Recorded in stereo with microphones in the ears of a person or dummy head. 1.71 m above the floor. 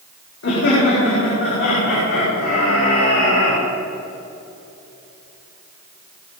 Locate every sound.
0.4 s laughter: 70° left (ahead or behind), 5 m; by 3.6 s 80° left, 6.5 m